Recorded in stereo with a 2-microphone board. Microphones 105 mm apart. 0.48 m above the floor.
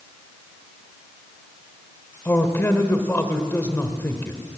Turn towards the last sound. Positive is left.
turn(degrees=20)  # may be behind; listen again after turning